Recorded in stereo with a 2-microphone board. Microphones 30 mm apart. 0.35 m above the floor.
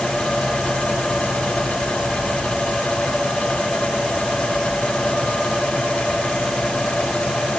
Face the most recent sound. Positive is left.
No sound to turn to.